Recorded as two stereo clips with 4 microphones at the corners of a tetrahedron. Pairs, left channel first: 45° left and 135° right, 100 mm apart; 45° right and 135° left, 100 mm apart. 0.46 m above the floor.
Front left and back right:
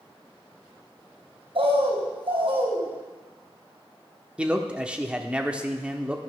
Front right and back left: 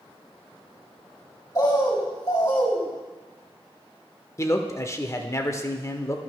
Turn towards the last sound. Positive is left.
turn(degrees=-65)